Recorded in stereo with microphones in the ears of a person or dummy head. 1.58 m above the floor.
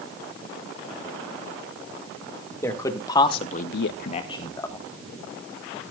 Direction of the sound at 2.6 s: 15° left (ahead or behind).